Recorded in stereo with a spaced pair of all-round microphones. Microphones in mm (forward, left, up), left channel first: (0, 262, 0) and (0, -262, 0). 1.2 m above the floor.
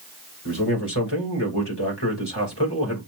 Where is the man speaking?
50° left (ahead or behind), 3 m.